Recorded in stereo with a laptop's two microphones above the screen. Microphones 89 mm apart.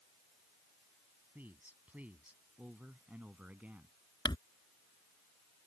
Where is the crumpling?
55° left (ahead or behind).